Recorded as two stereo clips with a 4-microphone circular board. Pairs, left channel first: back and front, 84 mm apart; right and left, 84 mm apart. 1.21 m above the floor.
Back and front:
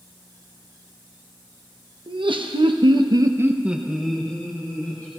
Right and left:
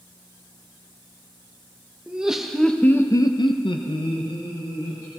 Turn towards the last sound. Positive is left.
turn(degrees=-110)